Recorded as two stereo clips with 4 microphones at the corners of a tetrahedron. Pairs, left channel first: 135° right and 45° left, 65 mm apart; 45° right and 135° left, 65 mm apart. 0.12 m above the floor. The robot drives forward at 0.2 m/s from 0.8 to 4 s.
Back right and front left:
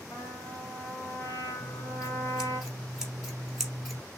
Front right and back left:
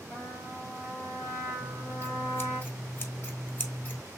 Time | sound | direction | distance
0.1 | a trumpet | 95° right | 3 m
1.6 | scissors | 25° right | 1.4 m